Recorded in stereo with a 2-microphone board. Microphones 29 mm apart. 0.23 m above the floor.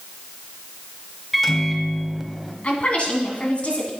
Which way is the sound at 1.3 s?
Centre (ahead or behind).